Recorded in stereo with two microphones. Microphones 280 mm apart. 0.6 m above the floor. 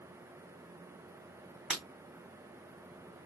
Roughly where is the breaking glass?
Centre.